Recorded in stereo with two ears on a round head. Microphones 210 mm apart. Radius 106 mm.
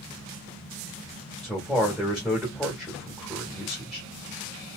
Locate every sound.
1.4 s a man speaking: 5° right (ahead or behind), 1.5 m